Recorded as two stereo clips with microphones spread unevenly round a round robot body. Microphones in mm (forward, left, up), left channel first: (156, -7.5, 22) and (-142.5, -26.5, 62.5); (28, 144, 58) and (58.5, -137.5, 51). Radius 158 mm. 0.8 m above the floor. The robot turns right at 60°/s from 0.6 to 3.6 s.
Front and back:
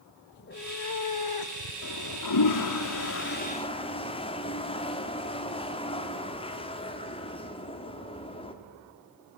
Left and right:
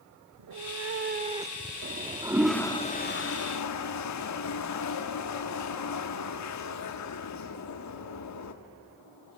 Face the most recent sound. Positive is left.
turn(degrees=75)